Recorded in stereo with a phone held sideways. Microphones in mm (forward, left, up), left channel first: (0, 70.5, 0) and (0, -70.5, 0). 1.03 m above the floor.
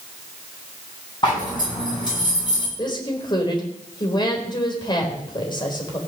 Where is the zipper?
35° left (ahead or behind), 9.5 m.